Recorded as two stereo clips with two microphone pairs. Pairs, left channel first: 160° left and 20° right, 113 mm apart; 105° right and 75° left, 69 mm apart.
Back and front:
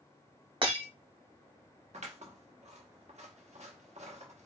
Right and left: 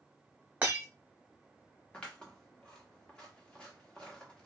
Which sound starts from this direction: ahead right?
Scissors, at 1.9 s.